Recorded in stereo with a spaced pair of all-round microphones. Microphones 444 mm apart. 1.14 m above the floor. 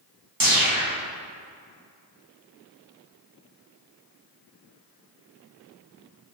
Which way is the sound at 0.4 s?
50° right (ahead or behind).